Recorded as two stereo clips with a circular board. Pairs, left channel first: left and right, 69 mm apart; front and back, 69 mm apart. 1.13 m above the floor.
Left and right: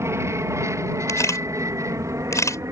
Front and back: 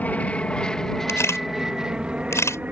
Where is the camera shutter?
45° left.